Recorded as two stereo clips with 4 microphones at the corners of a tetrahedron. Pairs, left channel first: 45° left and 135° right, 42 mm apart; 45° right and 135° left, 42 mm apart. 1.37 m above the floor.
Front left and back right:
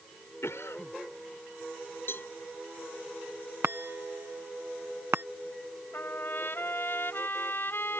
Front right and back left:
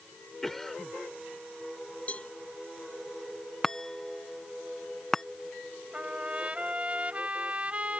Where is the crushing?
I don't hear crushing.